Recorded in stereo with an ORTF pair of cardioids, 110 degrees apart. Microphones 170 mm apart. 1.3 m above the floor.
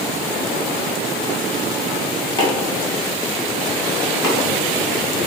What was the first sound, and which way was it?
Chopping, 25° left.